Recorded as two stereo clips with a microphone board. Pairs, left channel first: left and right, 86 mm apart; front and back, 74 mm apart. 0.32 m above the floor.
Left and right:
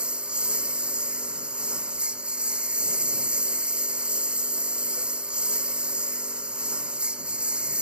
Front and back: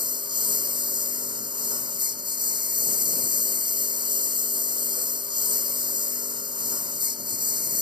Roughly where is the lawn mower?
Behind.